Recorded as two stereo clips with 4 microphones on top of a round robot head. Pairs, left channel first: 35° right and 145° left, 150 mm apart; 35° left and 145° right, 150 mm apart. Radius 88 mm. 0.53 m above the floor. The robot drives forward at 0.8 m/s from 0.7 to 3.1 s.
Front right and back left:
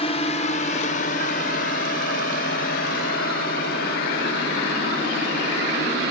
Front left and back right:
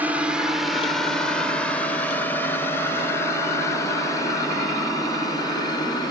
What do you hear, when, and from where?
0.0 s a drone: 65° right; by 6.1 s 30° right